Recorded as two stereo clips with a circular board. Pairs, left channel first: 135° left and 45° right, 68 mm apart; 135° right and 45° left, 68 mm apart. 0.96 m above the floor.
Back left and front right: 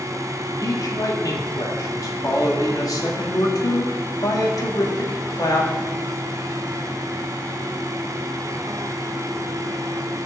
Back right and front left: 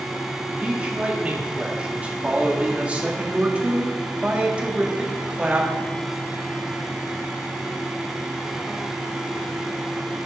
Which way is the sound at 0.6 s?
115° left.